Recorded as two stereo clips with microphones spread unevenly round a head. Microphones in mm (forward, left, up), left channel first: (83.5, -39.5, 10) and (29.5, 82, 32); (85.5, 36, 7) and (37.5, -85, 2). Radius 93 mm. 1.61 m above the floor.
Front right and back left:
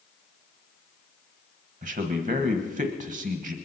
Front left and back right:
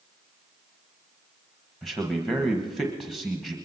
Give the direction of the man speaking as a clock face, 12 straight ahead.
7 o'clock.